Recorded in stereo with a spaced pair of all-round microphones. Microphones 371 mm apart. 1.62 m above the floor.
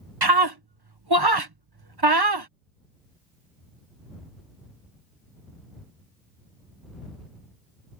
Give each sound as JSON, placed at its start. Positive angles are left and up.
{"t": 0.2, "sound": "a scream", "side_deg": -90}